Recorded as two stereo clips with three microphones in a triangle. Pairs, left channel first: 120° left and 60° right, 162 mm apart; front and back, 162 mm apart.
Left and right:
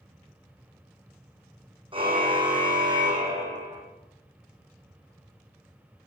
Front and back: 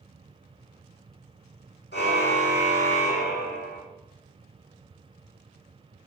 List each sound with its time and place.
1.9 s a car horn: straight ahead, 4 m; by 3.8 s 5° left, 5 m